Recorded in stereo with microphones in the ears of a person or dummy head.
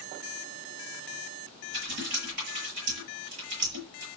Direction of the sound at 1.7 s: 80° right.